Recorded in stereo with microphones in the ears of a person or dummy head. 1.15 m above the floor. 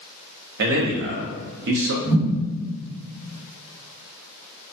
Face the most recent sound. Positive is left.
turn(degrees=-15)  # may be behind; listen again after turning